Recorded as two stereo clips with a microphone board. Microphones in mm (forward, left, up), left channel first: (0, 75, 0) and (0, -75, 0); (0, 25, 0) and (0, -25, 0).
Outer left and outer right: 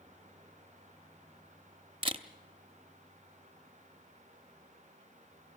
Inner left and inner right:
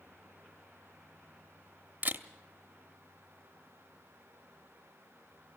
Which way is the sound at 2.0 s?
40° right (ahead or behind).